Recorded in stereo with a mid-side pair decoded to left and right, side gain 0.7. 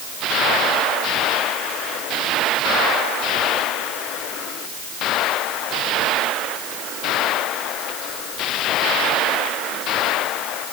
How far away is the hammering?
I don't hear hammering.